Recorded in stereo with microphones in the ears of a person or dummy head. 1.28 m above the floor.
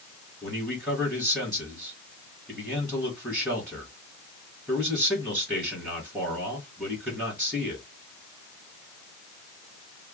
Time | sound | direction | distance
0.4 | a man speaking | centre (ahead or behind) | 1.5 m